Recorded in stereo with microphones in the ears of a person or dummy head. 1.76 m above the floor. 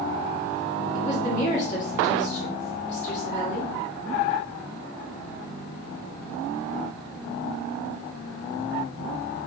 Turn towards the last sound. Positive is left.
turn(degrees=45)  # may be behind; listen again after turning